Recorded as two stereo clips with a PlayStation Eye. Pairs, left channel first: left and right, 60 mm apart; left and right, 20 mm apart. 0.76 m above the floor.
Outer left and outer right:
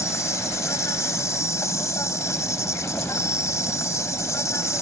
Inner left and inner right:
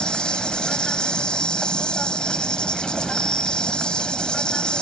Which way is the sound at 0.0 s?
55° left (ahead or behind).